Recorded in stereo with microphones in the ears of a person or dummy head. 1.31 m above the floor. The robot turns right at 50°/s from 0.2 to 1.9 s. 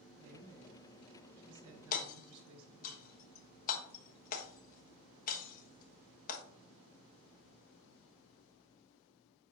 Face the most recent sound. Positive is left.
turn(degrees=50)  # may be behind; listen again after turning